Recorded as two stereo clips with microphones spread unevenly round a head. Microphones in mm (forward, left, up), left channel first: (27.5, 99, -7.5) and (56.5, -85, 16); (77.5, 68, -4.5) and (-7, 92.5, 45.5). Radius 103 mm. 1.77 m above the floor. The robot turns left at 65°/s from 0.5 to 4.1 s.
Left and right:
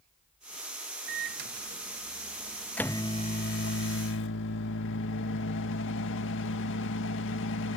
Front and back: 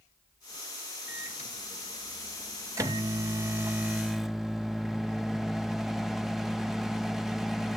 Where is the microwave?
65° right; by 7.8 s 100° left.